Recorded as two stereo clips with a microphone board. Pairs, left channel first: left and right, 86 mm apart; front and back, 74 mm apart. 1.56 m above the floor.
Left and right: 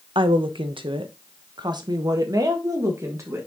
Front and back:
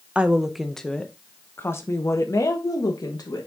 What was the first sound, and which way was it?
A woman speaking, 105° right.